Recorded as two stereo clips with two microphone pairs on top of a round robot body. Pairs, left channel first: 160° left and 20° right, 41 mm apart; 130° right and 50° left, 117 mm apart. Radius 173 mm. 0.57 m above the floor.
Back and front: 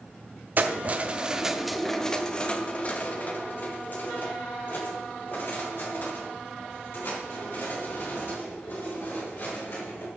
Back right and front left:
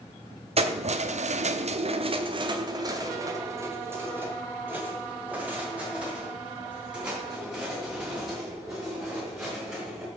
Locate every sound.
0.6 s keys jangling: 20° left, 1.0 m; by 10.1 s 135° left, 5.5 m